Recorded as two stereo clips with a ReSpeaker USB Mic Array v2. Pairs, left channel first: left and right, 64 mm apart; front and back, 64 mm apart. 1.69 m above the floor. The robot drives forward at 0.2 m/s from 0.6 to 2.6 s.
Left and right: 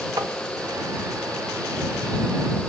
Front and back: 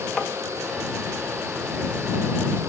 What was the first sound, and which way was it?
Tapping, 85° right.